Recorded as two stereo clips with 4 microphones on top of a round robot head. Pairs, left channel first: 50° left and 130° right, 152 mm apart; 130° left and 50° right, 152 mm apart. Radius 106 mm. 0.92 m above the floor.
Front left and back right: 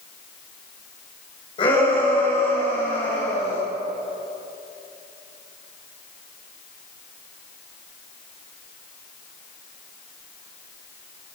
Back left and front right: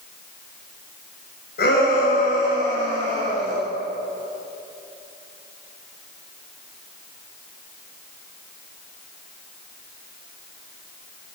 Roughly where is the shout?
Left.